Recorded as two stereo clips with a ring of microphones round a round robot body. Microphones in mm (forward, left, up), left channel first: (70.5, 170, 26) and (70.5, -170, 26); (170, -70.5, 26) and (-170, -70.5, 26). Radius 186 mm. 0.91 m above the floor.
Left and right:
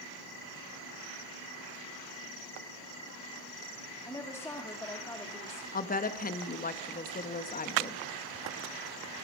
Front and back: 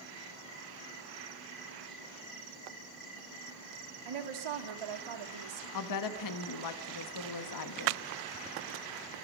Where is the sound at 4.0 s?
175° left, 2 m.